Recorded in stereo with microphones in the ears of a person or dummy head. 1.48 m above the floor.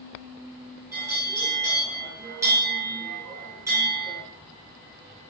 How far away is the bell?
About 4 m.